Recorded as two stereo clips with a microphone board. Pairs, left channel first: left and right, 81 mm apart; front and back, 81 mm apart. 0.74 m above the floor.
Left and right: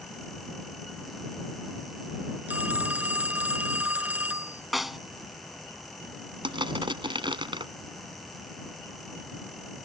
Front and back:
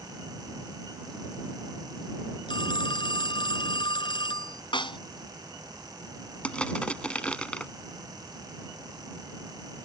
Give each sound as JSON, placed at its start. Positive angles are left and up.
{"t": 2.5, "sound": "a phone ringing", "azimuth_deg": -20}
{"t": 4.7, "sound": "a snare drum", "azimuth_deg": 0}
{"t": 6.4, "sound": "crushing", "azimuth_deg": -80}